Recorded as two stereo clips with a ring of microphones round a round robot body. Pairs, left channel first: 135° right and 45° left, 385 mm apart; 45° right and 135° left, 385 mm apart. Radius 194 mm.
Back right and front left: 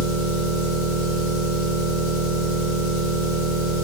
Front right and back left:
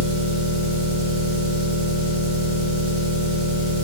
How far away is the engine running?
About 1.2 m.